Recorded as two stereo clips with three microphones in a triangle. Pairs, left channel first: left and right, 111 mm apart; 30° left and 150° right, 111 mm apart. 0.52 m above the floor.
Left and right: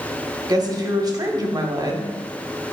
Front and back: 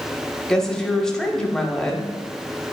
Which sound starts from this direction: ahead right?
A woman speaking, at 0.5 s.